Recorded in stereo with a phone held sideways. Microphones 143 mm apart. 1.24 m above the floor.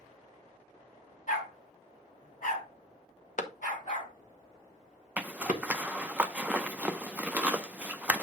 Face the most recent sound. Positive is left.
turn(degrees=-10)  # may be behind; listen again after turning